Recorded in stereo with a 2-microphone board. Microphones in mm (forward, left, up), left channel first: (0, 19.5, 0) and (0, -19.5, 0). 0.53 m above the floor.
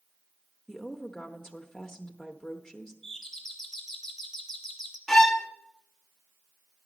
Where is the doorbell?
5° left (ahead or behind), 1.4 m.